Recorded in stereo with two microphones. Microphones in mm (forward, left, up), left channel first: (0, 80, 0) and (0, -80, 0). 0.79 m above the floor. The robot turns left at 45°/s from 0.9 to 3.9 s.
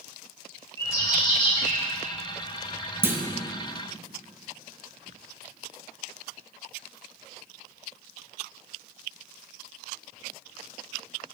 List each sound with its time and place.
0.8 s a bird: 160° left, 1.3 m; by 1.8 s 120° left, 1.3 m
3.0 s a clunk: 15° right (ahead or behind), 0.6 m; by 3.2 s 10° right (ahead or behind), 0.6 m